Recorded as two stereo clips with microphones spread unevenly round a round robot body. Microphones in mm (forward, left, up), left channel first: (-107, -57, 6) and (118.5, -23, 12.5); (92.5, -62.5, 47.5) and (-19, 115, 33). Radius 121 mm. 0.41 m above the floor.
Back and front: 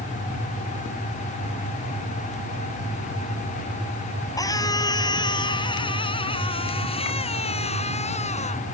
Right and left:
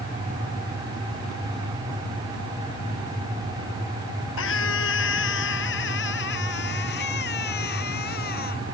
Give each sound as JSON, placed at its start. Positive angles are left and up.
{"t": 4.4, "sound": "a scream", "azimuth_deg": -95}